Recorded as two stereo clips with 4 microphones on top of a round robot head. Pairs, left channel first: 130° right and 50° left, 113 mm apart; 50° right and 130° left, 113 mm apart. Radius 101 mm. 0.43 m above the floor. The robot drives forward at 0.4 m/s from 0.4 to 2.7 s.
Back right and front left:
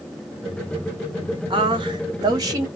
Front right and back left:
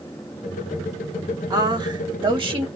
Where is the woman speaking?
80° left, 1.6 m; by 2.7 s 105° left, 1.6 m.